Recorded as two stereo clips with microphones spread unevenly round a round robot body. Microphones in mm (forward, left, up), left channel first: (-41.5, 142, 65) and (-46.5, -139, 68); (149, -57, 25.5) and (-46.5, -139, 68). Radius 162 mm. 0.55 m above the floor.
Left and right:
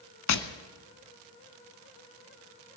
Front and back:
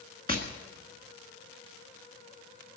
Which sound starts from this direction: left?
Tapping, at 0.3 s.